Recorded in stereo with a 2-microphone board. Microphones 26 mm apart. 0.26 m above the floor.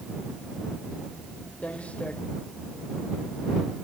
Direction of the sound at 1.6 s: 55° left (ahead or behind).